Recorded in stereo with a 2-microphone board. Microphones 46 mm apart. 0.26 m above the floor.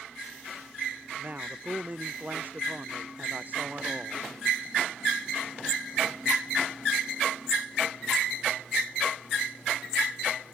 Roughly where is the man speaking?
Right.